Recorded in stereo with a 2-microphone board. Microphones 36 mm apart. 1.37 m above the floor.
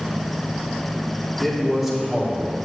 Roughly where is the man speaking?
Centre.